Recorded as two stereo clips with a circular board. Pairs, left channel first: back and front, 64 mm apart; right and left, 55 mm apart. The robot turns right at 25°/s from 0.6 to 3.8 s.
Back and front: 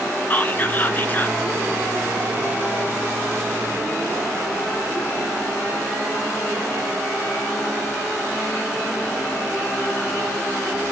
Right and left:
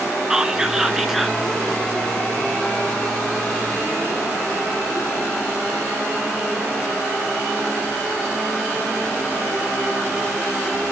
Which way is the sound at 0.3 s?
160° left.